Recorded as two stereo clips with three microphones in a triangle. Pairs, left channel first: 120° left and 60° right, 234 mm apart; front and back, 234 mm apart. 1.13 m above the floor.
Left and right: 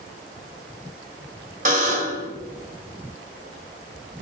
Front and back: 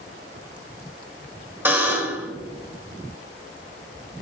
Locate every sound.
1.6 s a buzzer: 100° right, 1.3 m